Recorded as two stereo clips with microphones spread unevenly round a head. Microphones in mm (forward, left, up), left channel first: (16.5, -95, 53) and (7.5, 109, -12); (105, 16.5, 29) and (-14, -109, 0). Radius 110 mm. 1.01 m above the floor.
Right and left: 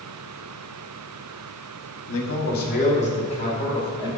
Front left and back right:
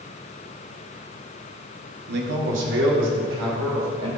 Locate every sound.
2.1 s a man speaking: 115° right, 1.3 m; by 4.2 s 160° right, 4 m